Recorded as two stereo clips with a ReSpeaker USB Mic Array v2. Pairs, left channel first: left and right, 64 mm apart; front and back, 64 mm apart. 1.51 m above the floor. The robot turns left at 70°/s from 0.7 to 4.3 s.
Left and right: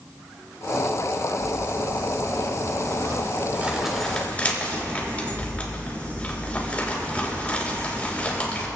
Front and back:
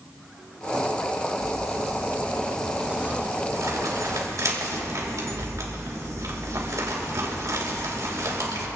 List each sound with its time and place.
1.4 s crumpling: straight ahead, 3 m; by 8.7 s 155° left, 3 m